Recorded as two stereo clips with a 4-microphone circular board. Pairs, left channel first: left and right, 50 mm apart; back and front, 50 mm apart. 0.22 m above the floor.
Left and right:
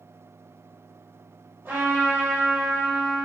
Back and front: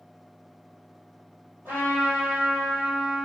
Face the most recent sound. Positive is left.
turn(degrees=-45)